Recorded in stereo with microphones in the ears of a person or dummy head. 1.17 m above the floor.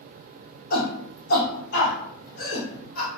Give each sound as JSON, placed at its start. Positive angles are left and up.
{"t": 0.7, "sound": "a shout", "side_deg": 60, "distance_m": 1.8}